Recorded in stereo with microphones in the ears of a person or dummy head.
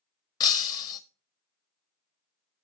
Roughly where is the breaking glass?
Left.